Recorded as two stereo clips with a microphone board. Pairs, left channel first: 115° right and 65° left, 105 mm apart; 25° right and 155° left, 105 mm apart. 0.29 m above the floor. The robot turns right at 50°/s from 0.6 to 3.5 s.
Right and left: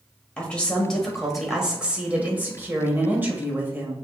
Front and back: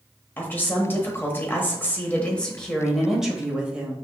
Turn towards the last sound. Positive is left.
turn(degrees=90)